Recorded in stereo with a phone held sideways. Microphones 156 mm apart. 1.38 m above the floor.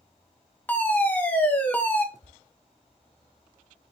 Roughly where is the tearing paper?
Right.